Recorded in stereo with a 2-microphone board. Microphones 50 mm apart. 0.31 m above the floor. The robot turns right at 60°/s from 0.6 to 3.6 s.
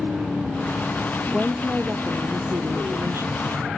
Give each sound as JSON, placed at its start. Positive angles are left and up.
{"t": 1.3, "sound": "a woman speaking", "azimuth_deg": 180}